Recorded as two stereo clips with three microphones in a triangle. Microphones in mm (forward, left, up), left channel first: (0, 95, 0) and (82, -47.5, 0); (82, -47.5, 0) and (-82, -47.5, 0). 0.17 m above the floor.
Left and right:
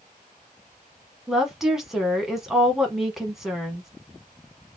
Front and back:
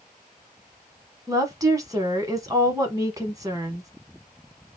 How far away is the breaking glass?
No breaking glass in this recording.